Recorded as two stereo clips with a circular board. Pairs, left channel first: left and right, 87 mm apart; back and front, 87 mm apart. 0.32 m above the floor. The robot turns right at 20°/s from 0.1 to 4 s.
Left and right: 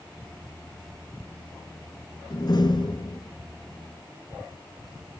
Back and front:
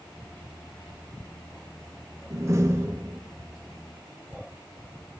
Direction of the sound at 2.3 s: 55° left.